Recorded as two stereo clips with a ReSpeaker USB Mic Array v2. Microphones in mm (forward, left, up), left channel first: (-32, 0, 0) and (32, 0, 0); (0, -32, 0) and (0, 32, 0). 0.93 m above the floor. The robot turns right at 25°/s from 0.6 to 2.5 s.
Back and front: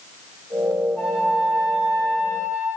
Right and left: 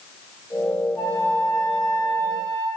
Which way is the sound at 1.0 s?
95° right.